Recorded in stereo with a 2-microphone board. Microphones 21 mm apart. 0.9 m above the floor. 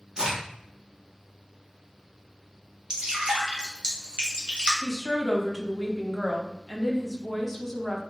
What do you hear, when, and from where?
0.2 s a crack: 30° right (ahead or behind), 1.0 m
2.9 s dripping: 45° right (ahead or behind), 0.9 m
4.8 s a woman speaking: 5° left (ahead or behind), 0.6 m